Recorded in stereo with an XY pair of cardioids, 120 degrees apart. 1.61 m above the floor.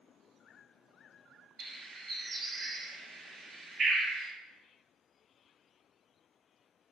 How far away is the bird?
About 0.9 m.